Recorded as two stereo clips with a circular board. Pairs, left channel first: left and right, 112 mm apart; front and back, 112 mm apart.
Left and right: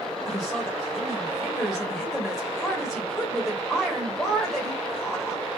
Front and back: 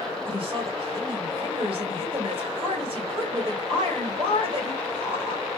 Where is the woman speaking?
Straight behind, 1.7 m.